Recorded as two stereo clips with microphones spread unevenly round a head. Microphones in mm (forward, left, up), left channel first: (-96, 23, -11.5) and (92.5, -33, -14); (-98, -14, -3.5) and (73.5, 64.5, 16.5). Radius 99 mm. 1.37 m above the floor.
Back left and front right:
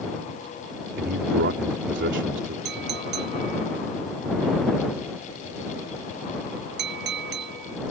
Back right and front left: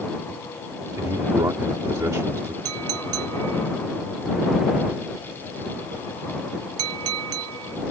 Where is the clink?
25° left.